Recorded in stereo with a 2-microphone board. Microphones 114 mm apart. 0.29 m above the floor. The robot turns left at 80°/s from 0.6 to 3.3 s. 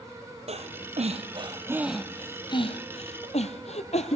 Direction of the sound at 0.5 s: 70° right (ahead or behind).